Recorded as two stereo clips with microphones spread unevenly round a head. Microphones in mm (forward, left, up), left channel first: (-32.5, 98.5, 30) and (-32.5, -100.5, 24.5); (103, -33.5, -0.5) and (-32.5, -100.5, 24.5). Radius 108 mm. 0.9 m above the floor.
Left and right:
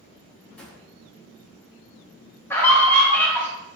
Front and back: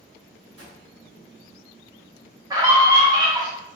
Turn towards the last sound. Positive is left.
turn(degrees=155)